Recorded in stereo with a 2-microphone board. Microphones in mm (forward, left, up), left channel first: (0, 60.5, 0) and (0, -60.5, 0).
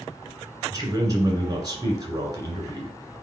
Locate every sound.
0.7 s a man speaking: 30° right (ahead or behind), 2 m